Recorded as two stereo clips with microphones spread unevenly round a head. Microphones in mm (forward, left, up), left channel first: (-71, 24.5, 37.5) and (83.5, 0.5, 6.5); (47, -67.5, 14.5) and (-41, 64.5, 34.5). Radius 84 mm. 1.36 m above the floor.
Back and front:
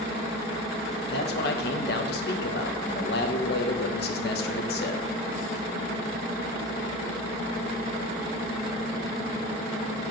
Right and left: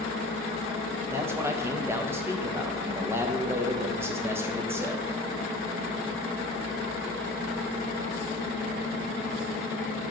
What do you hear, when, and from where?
1.1 s a man speaking: 165° right, 0.9 m